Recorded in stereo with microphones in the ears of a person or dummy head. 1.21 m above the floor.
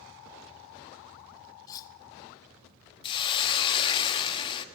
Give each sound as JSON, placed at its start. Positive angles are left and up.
{"t": 1.7, "sound": "cutlery clinking", "side_deg": 20, "distance_m": 0.7}
{"t": 3.0, "sound": "a hiss", "side_deg": 30, "distance_m": 1.3}